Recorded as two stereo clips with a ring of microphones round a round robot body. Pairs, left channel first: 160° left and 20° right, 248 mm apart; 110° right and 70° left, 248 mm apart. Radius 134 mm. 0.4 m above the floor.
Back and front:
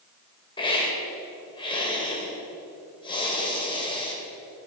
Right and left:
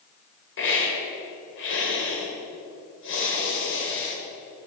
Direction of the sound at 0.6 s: 135° right.